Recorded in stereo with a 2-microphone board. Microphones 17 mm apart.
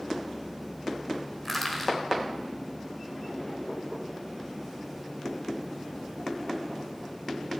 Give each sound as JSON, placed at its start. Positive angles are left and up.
{"t": 1.4, "sound": "crushing", "side_deg": 15, "distance_m": 1.8}